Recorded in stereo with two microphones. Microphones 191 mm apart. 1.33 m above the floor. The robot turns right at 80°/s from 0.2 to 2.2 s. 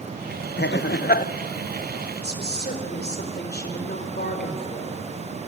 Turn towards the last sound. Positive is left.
turn(degrees=60)  # may be behind; listen again after turning